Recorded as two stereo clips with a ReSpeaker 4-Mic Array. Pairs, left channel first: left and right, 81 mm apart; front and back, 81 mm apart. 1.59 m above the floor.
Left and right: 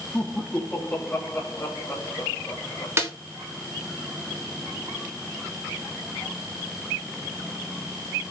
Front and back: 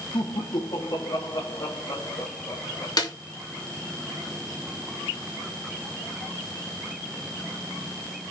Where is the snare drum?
30° right, 3 m.